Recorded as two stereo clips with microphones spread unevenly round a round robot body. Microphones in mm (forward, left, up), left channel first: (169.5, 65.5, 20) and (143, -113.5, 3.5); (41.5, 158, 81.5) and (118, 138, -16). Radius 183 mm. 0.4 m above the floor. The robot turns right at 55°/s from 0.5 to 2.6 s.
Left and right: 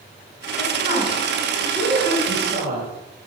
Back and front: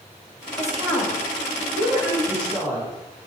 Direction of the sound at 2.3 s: 105° right.